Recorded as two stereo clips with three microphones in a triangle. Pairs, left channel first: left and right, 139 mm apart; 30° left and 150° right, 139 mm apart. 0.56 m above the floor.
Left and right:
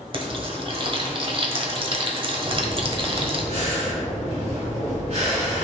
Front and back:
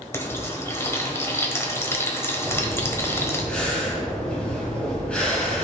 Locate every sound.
0.1 s frying: 40° right, 1.4 m
2.4 s breathing: 50° right, 3 m